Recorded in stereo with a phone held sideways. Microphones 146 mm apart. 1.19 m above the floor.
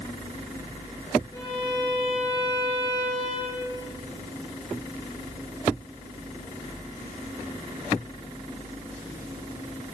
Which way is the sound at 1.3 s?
25° left (ahead or behind).